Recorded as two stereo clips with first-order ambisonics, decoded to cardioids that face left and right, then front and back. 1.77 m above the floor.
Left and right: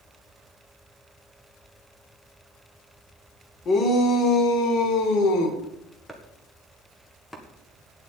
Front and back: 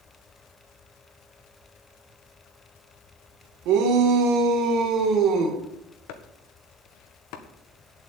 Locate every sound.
3.6 s a shout: 150° left, 2.5 m; by 5.6 s 125° left, 2.5 m
6.1 s chopping: 5° left, 1.7 m